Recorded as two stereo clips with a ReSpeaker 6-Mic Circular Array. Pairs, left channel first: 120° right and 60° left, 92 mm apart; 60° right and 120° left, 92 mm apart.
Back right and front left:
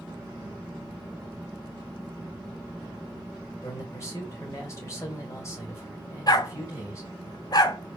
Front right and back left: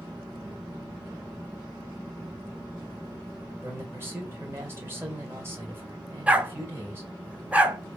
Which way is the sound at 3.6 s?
175° right.